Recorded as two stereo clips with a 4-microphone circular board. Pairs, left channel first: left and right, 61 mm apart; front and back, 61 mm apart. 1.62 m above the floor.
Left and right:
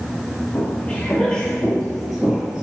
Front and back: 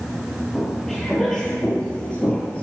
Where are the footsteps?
90° left, 1.8 m; by 2.6 s 25° right, 1.8 m.